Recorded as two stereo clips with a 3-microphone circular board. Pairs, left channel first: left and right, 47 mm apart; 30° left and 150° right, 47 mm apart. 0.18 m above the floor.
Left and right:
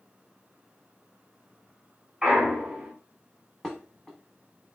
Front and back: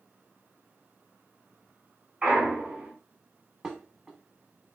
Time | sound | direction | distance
2.2 | a clunk | 140° right | 1.3 m
3.6 | dishes clattering | 155° left | 0.7 m